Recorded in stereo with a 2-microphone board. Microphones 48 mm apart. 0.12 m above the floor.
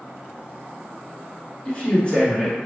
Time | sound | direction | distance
1.6 | a man speaking | 30° left (ahead or behind) | 1.6 m